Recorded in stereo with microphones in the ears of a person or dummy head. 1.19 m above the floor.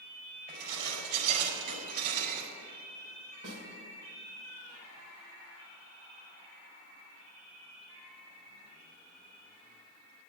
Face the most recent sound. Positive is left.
turn(degrees=-65)  # may be behind; listen again after turning